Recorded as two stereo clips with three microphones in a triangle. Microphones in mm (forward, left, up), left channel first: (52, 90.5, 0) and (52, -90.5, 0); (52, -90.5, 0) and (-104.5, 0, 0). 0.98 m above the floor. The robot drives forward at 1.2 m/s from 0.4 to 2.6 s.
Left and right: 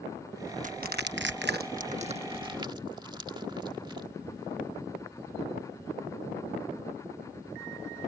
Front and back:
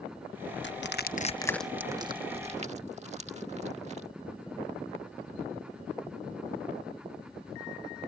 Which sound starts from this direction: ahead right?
Crushing, at 0.6 s.